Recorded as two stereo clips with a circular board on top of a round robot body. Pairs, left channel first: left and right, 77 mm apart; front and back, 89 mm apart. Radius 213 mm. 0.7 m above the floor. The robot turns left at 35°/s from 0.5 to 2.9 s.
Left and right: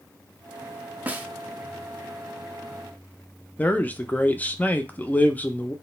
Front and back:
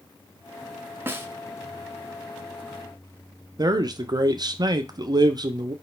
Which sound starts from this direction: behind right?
A snare drum, at 1.1 s.